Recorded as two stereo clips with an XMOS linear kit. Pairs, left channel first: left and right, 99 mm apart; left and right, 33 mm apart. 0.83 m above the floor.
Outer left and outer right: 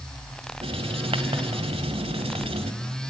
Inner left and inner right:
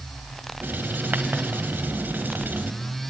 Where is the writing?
75° right (ahead or behind), 1.8 m.